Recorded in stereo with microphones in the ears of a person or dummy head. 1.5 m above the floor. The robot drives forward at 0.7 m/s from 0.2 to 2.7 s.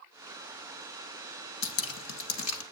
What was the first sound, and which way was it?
Dripping, 75° left (ahead or behind).